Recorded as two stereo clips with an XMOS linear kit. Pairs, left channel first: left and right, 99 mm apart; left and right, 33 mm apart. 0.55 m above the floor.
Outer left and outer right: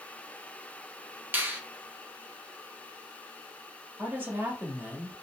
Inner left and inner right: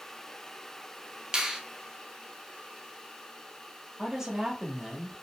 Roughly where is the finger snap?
Centre.